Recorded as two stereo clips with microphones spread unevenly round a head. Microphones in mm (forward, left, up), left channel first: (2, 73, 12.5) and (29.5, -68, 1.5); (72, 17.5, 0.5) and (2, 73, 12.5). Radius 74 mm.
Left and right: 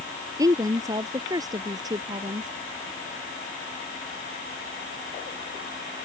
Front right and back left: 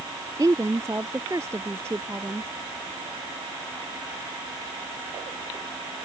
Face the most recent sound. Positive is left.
turn(degrees=-145)